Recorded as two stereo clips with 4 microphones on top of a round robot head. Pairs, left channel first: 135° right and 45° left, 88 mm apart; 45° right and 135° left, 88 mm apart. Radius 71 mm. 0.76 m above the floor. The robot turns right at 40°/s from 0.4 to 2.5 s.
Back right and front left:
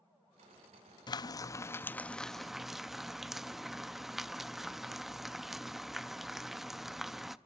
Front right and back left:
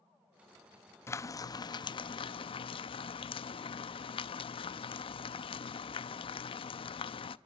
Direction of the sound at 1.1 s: 100° right.